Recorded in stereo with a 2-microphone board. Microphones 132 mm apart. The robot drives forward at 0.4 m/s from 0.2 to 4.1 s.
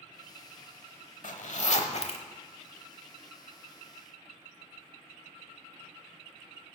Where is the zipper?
70° left (ahead or behind), 0.8 m; by 2.2 s 50° left (ahead or behind), 1.0 m.